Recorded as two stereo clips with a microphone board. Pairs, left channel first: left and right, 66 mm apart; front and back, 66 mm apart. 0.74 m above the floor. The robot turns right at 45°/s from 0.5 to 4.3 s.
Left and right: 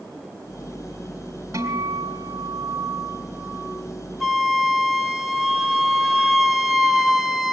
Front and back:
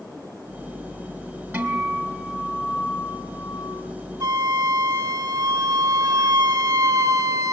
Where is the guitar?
115° right, 3 m; by 3.8 s 15° right, 3 m.